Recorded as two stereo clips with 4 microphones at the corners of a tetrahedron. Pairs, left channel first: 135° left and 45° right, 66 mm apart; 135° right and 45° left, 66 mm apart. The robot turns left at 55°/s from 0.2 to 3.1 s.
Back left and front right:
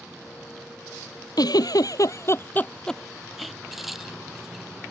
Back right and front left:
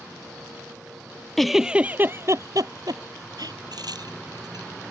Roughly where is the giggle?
Behind left.